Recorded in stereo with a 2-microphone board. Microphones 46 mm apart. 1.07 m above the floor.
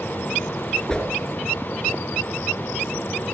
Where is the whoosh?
15° left (ahead or behind), 6 m.